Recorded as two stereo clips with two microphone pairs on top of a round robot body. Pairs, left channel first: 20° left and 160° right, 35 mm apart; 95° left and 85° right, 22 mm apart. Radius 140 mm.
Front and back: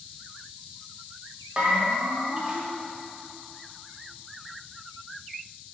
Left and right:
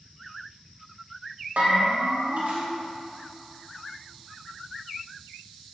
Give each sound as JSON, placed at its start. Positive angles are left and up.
{"t": 1.6, "sound": "a bell", "azimuth_deg": -95, "distance_m": 1.8}